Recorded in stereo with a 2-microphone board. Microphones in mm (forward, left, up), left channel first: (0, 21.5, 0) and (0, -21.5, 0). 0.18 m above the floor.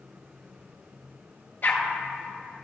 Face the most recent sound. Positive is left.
turn(degrees=55)  # may be behind; listen again after turning